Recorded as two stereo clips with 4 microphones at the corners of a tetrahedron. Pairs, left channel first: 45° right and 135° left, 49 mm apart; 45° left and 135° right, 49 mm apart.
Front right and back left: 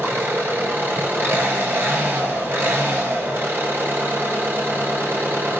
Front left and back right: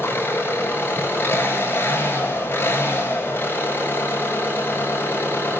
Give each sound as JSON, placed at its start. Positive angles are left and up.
{"t": 0.0, "sound": "an engine running", "azimuth_deg": 90, "distance_m": 8.0}